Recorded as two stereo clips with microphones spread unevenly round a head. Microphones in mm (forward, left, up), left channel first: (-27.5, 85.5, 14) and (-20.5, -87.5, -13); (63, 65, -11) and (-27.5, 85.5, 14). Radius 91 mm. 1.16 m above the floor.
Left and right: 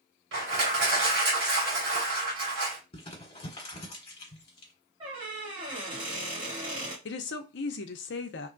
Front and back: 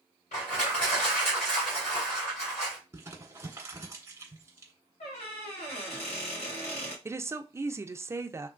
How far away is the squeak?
About 1.8 m.